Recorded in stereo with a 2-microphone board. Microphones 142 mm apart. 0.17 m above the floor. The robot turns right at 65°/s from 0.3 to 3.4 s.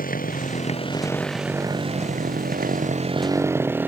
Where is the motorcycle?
80° left; by 3.9 s 15° right (ahead or behind).